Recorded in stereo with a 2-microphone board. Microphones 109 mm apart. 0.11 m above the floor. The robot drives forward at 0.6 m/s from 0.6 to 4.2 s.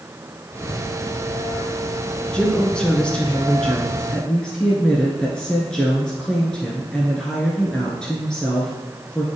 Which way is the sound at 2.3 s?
10° left (ahead or behind).